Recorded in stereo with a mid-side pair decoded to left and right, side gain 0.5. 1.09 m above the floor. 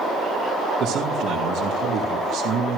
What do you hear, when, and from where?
0.8 s a man speaking: 70° right, 2.5 m